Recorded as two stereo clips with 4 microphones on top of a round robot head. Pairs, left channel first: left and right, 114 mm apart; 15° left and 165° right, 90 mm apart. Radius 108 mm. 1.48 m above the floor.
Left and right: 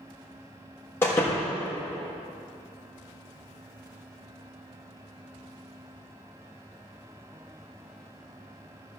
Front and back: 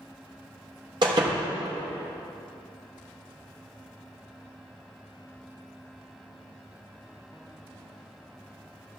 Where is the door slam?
165° left, 1.2 m.